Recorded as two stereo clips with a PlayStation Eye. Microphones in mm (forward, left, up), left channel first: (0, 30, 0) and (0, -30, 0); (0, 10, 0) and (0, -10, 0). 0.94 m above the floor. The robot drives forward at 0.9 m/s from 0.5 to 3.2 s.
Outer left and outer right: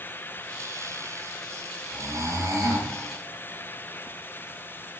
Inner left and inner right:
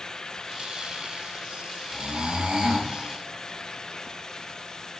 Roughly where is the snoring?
Right.